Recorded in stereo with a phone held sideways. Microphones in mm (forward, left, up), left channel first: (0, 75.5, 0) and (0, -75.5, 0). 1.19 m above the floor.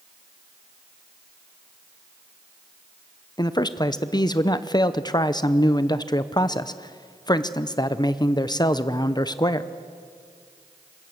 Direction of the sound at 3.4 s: 25° left (ahead or behind).